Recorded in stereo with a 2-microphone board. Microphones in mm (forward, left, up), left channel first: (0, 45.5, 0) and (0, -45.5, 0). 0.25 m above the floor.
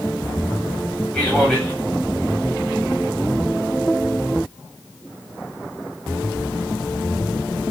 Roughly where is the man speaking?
Centre.